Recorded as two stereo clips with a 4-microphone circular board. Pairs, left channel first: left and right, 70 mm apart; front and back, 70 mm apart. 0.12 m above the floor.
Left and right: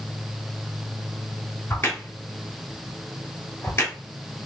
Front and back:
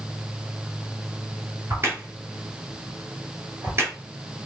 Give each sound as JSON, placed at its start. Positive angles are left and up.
{"t": 1.7, "sound": "a crack", "azimuth_deg": 135, "distance_m": 3.5}